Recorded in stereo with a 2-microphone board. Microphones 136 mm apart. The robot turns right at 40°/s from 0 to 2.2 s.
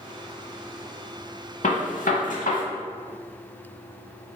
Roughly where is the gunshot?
Left.